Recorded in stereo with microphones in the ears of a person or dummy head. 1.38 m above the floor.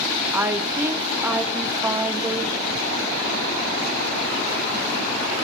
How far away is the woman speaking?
About 0.5 m.